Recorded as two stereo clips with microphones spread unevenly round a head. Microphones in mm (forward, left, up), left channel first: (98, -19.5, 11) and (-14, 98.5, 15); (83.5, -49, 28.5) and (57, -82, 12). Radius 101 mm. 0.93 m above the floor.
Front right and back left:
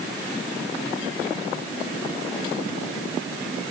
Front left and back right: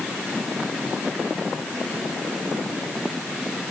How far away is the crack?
No crack in this recording.